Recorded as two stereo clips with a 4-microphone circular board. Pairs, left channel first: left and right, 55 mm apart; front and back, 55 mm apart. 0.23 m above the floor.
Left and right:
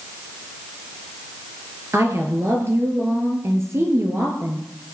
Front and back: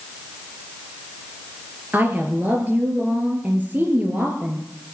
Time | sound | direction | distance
1.9 | a woman speaking | 125° right | 4 m